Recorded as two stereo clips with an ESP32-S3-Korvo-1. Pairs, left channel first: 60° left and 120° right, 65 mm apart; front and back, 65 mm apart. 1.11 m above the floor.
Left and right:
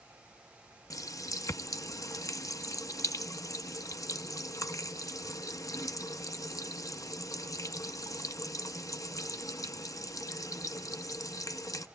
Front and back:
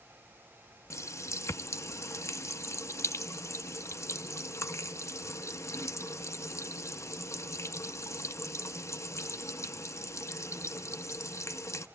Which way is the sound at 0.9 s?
40° left.